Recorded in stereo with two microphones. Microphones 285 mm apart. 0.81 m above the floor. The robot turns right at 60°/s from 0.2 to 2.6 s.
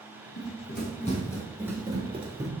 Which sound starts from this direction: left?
Running footsteps, at 0.4 s.